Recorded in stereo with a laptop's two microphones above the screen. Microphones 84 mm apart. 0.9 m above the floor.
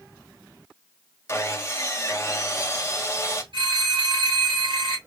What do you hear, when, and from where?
1.3 s sawing: 30° left (ahead or behind), 1.0 m
3.5 s a phone ringing: 75° right (ahead or behind), 3 m